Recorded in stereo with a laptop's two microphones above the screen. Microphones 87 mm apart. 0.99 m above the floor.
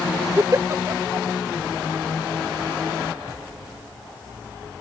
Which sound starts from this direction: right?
A giggle, at 0.4 s.